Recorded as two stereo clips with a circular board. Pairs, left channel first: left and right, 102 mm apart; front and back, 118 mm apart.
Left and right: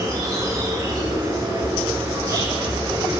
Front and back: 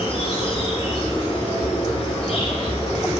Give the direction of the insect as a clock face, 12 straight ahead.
1 o'clock.